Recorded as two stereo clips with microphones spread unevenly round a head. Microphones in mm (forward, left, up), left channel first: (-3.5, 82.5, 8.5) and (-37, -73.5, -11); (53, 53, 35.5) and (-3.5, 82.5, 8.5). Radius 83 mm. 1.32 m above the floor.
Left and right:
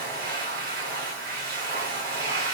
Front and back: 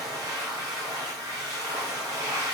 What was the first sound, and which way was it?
A machine running, 125° right.